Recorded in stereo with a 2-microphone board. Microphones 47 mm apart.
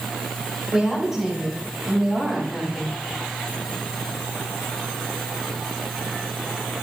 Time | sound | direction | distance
0.7 | a woman speaking | 10° right (ahead or behind) | 6.5 m